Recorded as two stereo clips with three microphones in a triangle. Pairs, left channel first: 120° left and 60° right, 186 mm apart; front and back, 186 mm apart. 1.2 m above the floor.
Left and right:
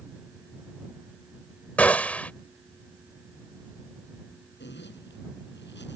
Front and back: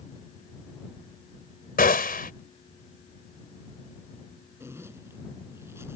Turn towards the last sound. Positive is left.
turn(degrees=105)